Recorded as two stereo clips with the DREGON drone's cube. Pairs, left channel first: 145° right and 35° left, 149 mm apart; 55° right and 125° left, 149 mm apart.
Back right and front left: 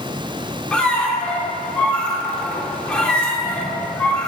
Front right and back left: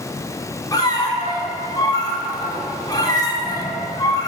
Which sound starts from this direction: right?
A squeak, at 0.7 s.